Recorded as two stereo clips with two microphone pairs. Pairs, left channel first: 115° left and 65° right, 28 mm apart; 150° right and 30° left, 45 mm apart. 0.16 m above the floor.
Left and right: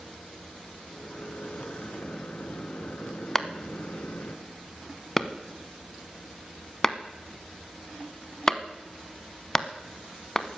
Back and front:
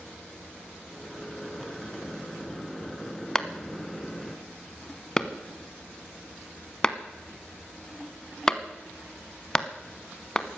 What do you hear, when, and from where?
0.9 s a microwave: 125° left, 1.7 m
3.4 s a clap: 160° left, 0.9 m